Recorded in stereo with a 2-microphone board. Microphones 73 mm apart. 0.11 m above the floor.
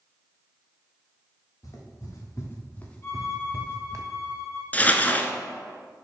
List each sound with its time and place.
1.6 s footsteps: 50° left (ahead or behind), 2.5 m; by 4.0 s 50° right (ahead or behind), 1.2 m
3.0 s a violin: 35° left (ahead or behind), 3 m
4.7 s crumpling: 25° left (ahead or behind), 0.6 m